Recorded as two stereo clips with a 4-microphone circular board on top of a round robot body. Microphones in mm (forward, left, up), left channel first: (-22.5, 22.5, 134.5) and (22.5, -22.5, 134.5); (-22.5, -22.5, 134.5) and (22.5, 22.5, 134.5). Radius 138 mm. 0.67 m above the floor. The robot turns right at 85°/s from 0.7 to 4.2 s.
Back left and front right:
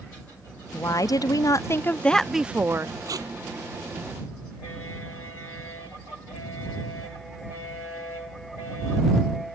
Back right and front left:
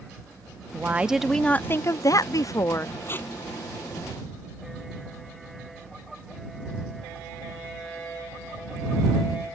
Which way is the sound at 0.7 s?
95° left.